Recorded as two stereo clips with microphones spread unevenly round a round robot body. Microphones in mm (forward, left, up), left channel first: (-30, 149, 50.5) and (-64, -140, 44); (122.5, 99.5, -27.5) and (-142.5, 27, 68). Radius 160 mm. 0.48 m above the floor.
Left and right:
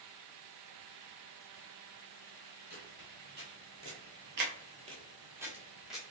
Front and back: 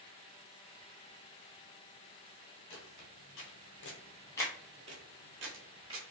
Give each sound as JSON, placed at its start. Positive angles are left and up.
{"t": 2.7, "sound": "footsteps", "azimuth_deg": -30, "distance_m": 1.1}